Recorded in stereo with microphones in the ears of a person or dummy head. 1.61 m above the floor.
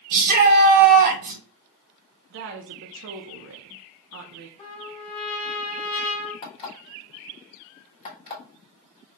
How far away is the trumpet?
About 1.7 m.